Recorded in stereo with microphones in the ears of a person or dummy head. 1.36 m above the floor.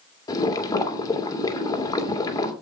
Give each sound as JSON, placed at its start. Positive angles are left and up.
{"t": 0.3, "sound": "boiling", "side_deg": 20, "distance_m": 2.5}